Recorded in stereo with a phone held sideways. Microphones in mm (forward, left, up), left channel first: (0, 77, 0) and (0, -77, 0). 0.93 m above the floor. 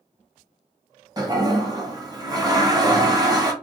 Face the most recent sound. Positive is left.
turn(degrees=-25)  # may be behind; listen again after turning